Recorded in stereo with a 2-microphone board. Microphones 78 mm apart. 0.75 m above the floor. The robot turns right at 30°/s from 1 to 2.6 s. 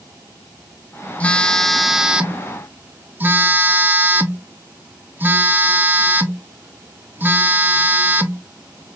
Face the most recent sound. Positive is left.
turn(degrees=-155)